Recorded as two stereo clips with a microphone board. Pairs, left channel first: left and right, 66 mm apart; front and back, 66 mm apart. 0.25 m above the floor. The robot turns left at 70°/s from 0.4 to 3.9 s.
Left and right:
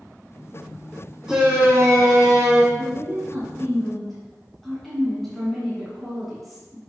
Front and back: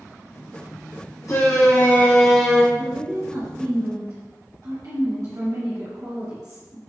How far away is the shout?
About 2 m.